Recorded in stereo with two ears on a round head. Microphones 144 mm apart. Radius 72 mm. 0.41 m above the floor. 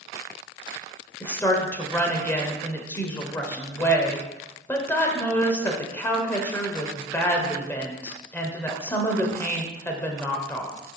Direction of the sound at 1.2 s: 15° left (ahead or behind).